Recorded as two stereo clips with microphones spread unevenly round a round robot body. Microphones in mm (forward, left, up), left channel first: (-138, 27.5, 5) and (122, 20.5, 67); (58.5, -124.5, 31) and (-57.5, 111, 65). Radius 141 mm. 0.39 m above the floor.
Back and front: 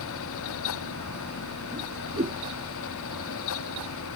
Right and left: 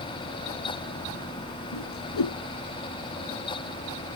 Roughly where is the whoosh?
Right.